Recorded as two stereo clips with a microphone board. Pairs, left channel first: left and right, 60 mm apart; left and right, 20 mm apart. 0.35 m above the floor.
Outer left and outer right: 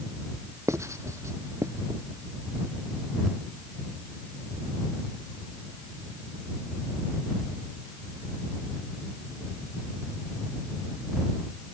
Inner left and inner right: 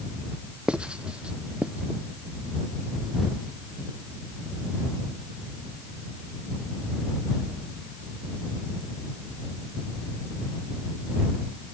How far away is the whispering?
No whispering in this recording.